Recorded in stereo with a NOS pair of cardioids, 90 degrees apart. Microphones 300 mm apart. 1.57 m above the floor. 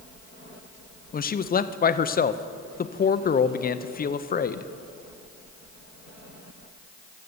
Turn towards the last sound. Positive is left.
turn(degrees=30)